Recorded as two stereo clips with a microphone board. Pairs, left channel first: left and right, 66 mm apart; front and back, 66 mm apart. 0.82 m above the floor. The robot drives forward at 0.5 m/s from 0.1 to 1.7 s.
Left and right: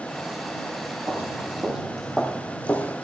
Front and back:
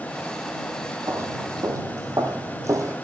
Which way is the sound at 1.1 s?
145° right.